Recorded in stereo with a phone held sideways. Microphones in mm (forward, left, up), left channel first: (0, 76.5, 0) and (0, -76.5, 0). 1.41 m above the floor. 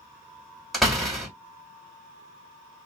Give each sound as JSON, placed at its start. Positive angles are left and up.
{"t": 0.7, "sound": "a door slam", "side_deg": 0, "distance_m": 2.0}